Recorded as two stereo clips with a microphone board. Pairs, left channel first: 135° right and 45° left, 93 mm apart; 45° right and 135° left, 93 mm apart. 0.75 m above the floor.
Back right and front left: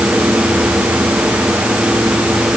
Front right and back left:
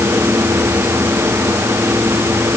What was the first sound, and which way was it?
Only background noise.